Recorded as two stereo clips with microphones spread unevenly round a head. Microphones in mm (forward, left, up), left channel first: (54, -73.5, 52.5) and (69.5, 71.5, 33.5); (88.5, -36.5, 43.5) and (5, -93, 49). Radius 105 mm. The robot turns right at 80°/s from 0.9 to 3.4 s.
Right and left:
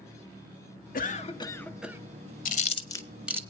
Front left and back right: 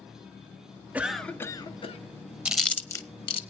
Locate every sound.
0.9 s a cough: 70° right, 1.7 m; by 2.0 s 10° left, 1.7 m
2.5 s chewing: 65° right, 1.1 m; by 3.4 s 10° left, 1.1 m